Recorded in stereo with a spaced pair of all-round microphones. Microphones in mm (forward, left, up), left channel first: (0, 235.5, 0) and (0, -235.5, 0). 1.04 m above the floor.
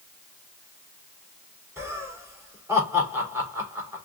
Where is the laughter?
5° right (ahead or behind), 3 m.